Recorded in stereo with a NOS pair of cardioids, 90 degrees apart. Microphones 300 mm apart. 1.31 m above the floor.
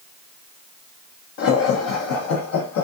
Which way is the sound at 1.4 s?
45° left.